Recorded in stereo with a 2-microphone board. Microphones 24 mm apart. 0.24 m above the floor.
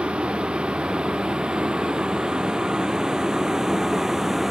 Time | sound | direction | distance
0.0 | a vehicle | 50° right (ahead or behind) | ?